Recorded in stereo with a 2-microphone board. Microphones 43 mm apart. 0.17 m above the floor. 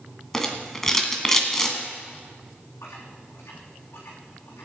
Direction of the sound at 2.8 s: 80° left.